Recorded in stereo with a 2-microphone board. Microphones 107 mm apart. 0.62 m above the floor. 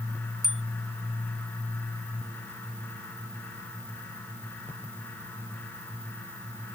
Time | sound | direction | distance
0.4 | a bicycle bell | centre (ahead or behind) | ?